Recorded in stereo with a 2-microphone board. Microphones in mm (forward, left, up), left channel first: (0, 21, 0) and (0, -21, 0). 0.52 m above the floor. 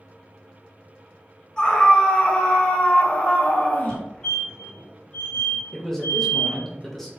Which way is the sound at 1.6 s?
20° left (ahead or behind).